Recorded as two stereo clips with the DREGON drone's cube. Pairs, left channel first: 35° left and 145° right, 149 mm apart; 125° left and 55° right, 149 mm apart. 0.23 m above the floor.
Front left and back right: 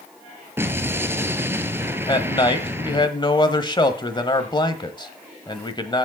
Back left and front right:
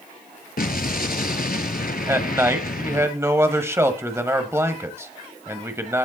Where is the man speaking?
5° left, 1.3 m.